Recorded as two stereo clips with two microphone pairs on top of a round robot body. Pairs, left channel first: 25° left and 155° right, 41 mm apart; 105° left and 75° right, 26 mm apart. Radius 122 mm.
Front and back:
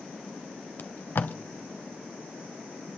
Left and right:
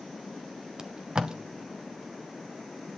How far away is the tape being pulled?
About 0.7 m.